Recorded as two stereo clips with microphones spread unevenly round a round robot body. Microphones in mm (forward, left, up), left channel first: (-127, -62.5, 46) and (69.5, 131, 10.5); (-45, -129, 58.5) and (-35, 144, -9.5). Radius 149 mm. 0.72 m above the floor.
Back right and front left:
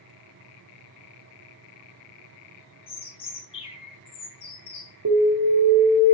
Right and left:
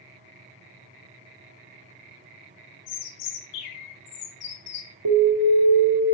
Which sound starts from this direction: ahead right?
A bird, at 2.9 s.